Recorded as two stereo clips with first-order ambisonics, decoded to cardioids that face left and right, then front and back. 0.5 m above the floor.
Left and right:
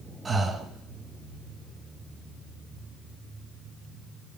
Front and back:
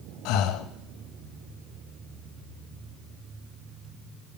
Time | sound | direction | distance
0.2 | breathing | 15° right | 0.5 m